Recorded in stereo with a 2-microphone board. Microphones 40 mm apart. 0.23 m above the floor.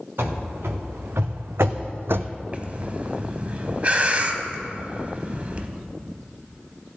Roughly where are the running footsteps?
Right.